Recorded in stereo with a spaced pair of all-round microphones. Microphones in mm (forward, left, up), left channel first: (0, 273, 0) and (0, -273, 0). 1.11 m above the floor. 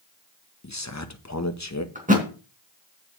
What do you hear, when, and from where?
0.6 s a man speaking: 30° left (ahead or behind), 1.3 m
1.9 s a thud: 15° right (ahead or behind), 3 m